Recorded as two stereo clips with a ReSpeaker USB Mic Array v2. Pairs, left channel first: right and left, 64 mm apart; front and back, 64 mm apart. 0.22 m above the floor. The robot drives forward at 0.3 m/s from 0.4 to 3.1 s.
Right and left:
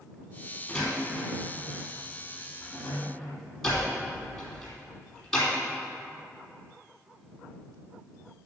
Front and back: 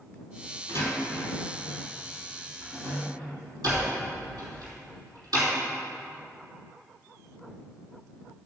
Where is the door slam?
170° right, 3.5 m.